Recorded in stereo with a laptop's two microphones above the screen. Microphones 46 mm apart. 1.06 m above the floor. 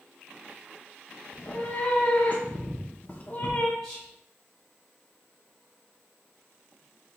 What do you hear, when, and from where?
1.3 s a cat meowing: 30° left (ahead or behind), 0.7 m
3.8 s whispering: centre (ahead or behind), 2.0 m